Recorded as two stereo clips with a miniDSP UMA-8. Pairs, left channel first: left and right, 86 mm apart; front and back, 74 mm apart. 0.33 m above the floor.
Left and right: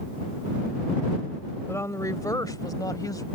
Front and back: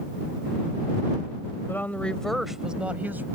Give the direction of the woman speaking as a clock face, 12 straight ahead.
10 o'clock.